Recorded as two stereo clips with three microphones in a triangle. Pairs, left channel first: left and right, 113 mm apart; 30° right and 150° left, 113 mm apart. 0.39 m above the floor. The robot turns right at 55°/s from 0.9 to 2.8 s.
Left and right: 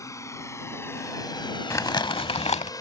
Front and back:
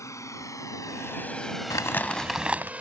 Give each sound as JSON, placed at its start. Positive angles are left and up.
{"t": 0.0, "sound": "a drone", "azimuth_deg": 30}
{"t": 1.7, "sound": "crumpling", "azimuth_deg": 25}